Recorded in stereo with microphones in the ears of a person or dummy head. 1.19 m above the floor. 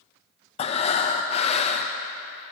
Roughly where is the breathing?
Left.